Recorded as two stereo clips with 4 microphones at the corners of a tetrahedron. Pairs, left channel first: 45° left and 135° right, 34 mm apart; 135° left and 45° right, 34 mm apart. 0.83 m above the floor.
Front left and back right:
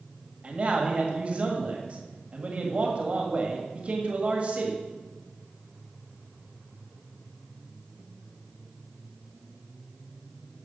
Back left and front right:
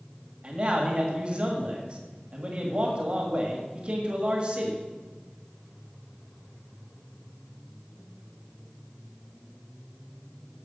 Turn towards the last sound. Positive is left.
turn(degrees=-90)